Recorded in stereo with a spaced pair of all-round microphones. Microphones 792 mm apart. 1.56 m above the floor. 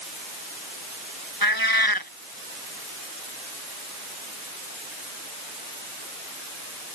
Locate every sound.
1.4 s a cat meowing: 25° left (ahead or behind)